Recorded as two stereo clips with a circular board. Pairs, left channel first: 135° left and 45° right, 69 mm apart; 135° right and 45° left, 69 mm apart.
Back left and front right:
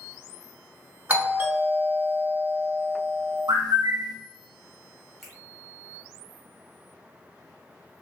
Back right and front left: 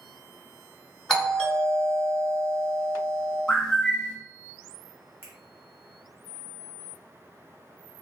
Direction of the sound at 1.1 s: 65° right.